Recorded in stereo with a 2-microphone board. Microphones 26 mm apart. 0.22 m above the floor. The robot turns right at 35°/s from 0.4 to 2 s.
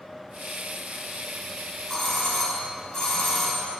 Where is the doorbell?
25° left (ahead or behind), 1.8 m.